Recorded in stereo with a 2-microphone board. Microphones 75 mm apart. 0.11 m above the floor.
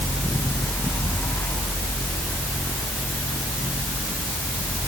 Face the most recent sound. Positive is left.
No sound to turn to.